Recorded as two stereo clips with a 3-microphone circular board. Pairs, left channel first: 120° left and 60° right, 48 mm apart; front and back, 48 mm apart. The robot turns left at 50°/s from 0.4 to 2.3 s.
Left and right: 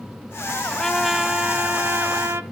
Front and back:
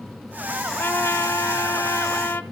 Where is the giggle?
No giggle in this recording.